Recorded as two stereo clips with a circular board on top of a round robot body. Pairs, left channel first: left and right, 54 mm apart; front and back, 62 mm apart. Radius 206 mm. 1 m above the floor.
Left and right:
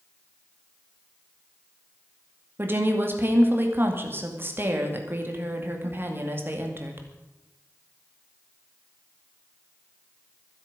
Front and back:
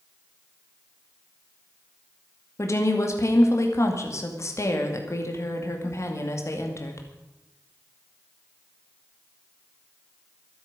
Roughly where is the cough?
I don't hear a cough.